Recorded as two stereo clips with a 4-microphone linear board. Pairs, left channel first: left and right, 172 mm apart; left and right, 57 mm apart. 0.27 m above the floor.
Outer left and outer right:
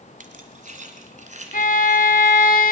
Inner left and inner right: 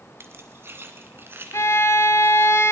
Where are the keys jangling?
50° right (ahead or behind), 1.5 m; by 2.5 s 40° right (ahead or behind), 2.5 m.